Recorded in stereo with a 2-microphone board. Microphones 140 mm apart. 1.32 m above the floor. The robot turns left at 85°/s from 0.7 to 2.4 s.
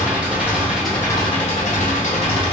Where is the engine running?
170° right, 0.9 m; by 2.5 s 45° left, 0.9 m.